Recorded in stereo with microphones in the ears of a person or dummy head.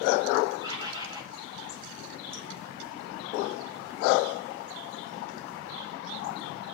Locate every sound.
0.6 s a bird: 25° right (ahead or behind), 7.5 m